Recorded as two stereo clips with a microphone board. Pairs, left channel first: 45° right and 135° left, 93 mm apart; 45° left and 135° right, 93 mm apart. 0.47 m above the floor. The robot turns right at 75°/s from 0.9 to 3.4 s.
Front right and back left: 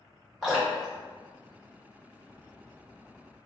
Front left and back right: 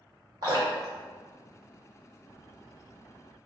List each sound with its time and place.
0.4 s dripping: 135° right, 1.9 m; by 2.1 s 40° right, 1.9 m